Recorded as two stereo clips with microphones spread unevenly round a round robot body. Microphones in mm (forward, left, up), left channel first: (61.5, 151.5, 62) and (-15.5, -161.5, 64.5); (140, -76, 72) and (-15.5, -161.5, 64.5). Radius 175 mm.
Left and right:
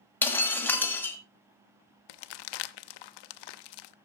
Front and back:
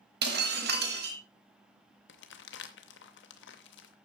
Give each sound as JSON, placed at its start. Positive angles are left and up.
{"t": 0.2, "sound": "breaking glass", "azimuth_deg": 160, "distance_m": 1.4}
{"t": 2.1, "sound": "crumpling", "azimuth_deg": 65, "distance_m": 0.7}